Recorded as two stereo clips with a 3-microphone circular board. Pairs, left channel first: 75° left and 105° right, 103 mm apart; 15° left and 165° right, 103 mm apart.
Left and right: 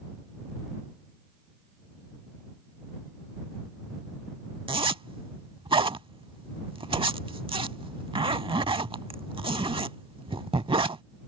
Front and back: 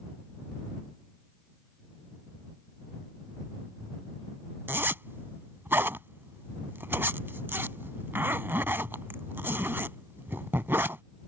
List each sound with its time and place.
4.7 s a zipper: 100° right